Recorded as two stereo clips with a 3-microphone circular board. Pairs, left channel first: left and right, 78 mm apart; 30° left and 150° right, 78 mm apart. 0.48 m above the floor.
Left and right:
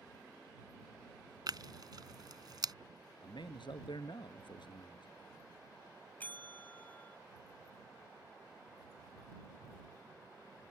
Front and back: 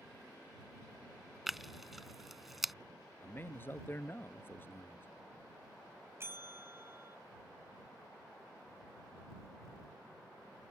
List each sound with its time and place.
1.5 s tearing paper: 65° right
3.2 s a man speaking: 90° left
6.2 s a bell: 155° left